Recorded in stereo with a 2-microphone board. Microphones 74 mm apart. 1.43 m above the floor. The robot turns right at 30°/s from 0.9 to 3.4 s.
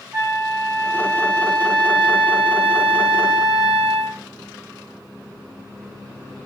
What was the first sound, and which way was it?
A flute, 145° right.